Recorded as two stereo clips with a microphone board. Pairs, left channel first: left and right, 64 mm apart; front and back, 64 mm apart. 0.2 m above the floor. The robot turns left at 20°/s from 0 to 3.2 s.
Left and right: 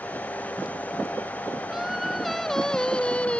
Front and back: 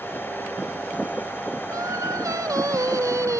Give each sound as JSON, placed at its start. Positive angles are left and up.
{"t": 1.7, "sound": "singing", "azimuth_deg": -170}